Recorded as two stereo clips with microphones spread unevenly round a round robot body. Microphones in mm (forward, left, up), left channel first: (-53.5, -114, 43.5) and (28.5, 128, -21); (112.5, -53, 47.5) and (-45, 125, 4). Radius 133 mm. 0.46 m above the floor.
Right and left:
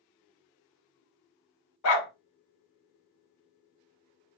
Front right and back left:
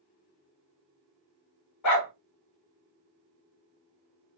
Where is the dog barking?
75° right, 0.9 m.